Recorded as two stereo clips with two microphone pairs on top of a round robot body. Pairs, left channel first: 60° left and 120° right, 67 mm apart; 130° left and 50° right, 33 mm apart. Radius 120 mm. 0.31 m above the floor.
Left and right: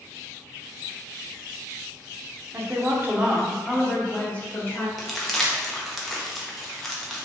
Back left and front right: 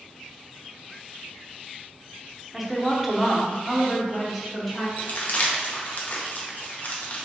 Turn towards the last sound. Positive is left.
turn(degrees=135)